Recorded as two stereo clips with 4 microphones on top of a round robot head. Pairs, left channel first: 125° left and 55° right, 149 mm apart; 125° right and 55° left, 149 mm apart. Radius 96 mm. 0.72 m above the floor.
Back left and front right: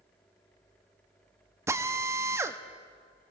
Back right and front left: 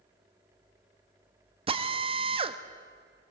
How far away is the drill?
About 1.3 m.